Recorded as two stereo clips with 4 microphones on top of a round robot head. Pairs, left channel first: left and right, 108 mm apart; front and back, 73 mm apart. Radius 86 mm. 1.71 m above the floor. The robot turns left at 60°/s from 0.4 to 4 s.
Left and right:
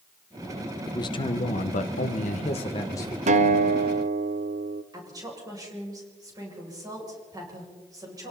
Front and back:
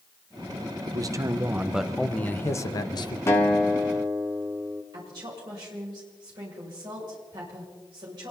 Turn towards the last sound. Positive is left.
turn(degrees=-145)